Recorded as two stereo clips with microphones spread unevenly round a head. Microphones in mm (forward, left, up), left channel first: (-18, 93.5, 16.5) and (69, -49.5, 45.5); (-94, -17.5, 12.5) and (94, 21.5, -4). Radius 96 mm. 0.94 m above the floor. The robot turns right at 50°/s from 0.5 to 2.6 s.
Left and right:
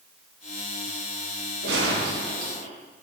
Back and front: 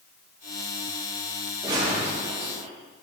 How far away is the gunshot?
About 6.5 m.